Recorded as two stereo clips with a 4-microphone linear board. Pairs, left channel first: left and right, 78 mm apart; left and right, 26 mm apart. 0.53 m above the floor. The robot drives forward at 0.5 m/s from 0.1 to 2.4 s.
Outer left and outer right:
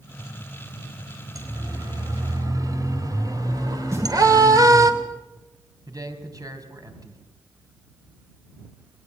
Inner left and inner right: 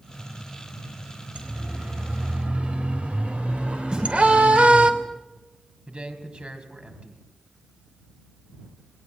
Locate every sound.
1.4 s a siren: 50° right (ahead or behind), 4 m; by 4.9 s 55° right (ahead or behind), 2.5 m
3.9 s a snare drum: 40° right (ahead or behind), 9 m
5.9 s a man speaking: 50° right (ahead or behind), 3 m